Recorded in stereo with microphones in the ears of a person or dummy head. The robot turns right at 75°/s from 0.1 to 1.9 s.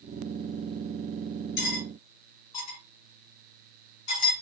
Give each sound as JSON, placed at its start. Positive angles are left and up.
{"t": 1.6, "sound": "cutlery clinking", "side_deg": 55, "distance_m": 1.5}